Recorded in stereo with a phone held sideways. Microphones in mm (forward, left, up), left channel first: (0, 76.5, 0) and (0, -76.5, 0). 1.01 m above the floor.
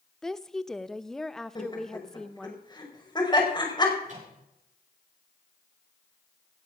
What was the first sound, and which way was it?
A woman speaking, centre (ahead or behind).